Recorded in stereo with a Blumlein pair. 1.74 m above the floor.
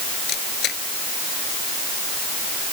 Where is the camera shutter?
30° left.